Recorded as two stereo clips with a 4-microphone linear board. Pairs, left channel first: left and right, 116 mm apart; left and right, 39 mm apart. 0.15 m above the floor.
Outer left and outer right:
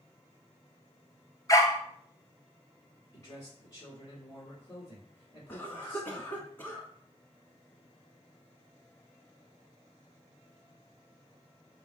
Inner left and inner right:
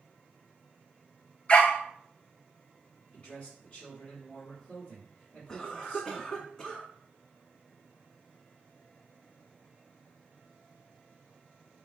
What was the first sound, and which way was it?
A dog barking, 30° left (ahead or behind).